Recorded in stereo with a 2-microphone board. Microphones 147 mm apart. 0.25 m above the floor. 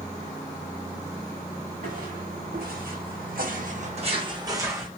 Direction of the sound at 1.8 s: 60° right (ahead or behind).